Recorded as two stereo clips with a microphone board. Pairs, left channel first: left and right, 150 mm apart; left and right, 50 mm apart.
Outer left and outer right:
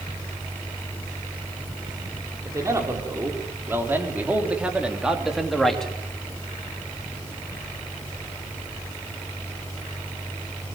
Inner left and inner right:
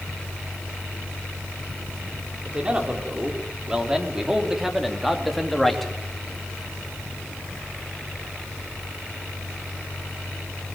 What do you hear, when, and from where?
2.5 s a man speaking: 20° right (ahead or behind), 4.5 m; by 5.9 s 5° left (ahead or behind), 3 m